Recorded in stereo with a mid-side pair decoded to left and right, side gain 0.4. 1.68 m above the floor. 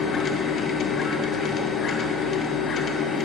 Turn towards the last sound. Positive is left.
turn(degrees=55)